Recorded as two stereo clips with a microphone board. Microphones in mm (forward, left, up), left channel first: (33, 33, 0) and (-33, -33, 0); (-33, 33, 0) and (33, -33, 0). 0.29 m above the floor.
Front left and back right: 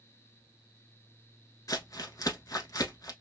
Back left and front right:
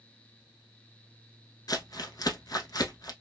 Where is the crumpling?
90° left, 0.9 m.